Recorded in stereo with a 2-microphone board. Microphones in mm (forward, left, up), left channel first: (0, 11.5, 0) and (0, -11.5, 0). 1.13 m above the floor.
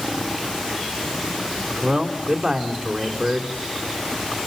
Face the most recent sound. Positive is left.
turn(degrees=-35)  # may be behind; listen again after turning